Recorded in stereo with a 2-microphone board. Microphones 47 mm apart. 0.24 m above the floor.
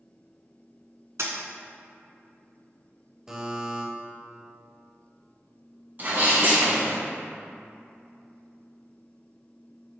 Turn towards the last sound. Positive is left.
turn(degrees=-45)  # may be behind; listen again after turning